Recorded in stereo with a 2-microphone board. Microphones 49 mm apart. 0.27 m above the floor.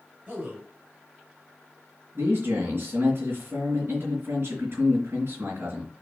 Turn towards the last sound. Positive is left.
turn(degrees=-50)  # may be behind; listen again after turning